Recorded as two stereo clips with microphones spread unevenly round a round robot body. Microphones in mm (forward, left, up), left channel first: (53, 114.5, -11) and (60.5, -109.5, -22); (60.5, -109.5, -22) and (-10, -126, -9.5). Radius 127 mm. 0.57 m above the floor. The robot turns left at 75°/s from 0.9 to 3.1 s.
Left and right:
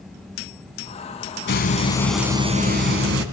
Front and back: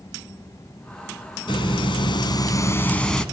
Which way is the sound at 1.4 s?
55° left.